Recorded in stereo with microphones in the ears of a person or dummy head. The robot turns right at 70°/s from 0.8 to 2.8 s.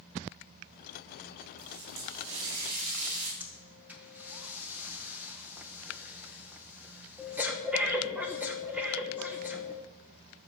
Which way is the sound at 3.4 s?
Centre (ahead or behind).